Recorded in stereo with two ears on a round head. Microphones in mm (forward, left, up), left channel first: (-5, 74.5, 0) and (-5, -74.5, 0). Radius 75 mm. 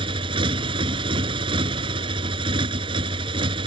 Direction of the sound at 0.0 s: 30° right (ahead or behind).